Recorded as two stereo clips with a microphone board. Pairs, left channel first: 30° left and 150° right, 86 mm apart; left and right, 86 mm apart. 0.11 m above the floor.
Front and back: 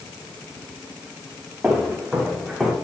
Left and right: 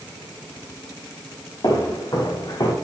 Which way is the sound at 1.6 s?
130° left.